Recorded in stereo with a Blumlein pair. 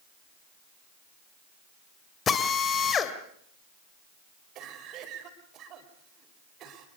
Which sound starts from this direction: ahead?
A drill, at 2.3 s.